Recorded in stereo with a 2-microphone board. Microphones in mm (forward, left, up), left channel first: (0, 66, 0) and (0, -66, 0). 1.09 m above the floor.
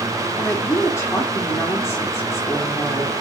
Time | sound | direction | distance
0.3 | a woman speaking | 20° left (ahead or behind) | 2 m